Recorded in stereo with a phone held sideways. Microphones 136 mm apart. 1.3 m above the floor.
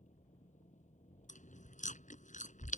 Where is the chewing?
65° left (ahead or behind).